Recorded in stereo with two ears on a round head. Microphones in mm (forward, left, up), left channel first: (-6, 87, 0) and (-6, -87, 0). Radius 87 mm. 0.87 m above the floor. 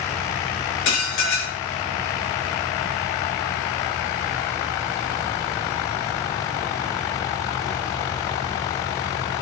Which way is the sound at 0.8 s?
65° left (ahead or behind).